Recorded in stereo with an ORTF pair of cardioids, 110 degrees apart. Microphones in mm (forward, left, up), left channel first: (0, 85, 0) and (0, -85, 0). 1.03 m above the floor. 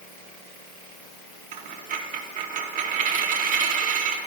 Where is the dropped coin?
50° right, 1.0 m.